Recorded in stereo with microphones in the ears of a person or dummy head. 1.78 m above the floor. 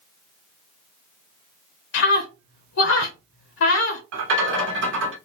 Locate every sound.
1.9 s a scream: 75° left (ahead or behind), 0.8 m
4.1 s a rattle: 65° right (ahead or behind), 1.0 m